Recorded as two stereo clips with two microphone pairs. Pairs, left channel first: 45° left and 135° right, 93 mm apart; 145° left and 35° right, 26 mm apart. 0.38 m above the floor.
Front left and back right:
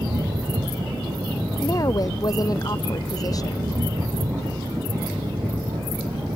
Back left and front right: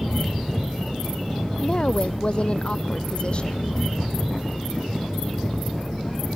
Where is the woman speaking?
95° left.